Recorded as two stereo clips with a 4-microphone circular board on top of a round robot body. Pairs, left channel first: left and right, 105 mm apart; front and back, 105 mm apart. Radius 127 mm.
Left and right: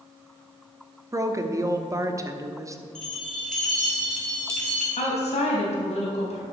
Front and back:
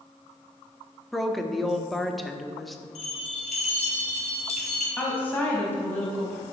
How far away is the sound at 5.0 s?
About 4 m.